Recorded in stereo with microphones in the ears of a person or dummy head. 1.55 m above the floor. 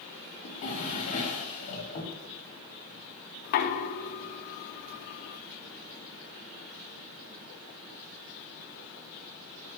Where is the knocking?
40° left (ahead or behind), 0.6 m.